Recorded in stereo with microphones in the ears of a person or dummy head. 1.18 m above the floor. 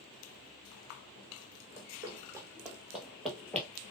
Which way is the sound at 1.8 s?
20° right (ahead or behind).